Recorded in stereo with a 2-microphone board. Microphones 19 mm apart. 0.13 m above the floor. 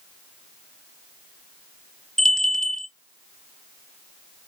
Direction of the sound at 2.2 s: 45° left (ahead or behind).